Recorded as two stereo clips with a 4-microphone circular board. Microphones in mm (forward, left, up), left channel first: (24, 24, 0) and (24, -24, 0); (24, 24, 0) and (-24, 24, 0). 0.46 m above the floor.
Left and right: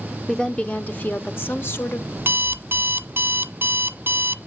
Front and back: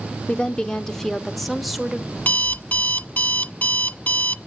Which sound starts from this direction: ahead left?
A woman speaking, at 0.3 s.